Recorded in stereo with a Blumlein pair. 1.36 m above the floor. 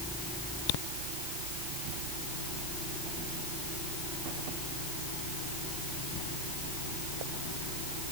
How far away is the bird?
I don't hear a bird.